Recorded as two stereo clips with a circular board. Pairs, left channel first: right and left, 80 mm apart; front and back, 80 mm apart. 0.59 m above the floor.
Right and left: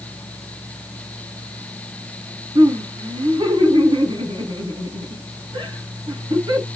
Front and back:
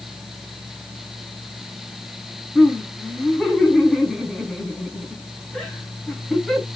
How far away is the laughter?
About 5 m.